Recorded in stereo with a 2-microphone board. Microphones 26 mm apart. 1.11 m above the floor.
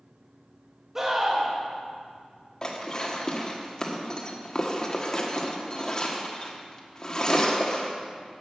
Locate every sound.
0.9 s a scream: 20° right (ahead or behind), 2 m
2.6 s dishes clattering: 30° left (ahead or behind), 1.4 m